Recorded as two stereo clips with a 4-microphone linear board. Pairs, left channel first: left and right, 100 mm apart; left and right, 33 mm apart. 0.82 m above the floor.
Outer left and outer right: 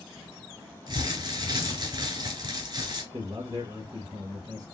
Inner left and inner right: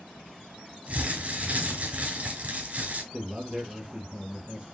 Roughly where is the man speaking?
Right.